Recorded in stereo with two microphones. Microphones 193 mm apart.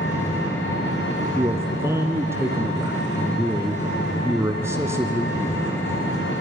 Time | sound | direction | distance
0.0 | an engine running | 80° left | 5.5 m
1.4 | a man speaking | 15° right (ahead or behind) | 1.8 m